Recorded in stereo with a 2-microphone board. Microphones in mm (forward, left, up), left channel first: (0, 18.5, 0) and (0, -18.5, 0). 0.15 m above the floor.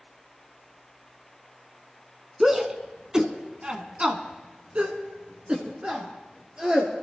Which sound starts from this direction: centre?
A shout, at 2.4 s.